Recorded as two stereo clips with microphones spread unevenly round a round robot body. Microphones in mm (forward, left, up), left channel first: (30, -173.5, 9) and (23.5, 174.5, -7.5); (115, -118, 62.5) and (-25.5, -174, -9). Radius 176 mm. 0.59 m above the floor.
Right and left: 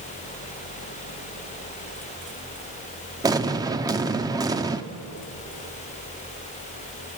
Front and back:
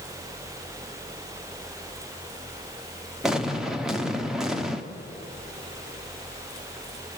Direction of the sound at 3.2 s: 160° left.